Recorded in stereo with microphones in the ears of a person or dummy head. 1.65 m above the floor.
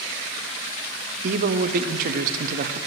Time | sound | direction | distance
1.2 | a man speaking | 50° right (ahead or behind) | 0.6 m